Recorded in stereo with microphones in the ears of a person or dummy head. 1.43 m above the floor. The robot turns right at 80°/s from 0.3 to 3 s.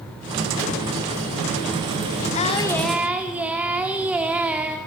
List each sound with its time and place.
2.4 s singing: 135° left, 2.5 m; by 4.8 s 170° right, 2.5 m